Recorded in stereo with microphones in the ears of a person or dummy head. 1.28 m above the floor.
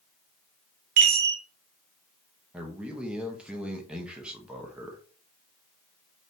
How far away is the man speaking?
About 0.9 m.